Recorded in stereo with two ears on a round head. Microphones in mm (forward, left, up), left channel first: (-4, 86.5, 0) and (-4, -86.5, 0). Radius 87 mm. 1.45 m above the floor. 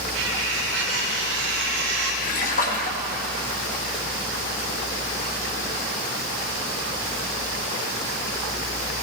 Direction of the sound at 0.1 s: 80° right.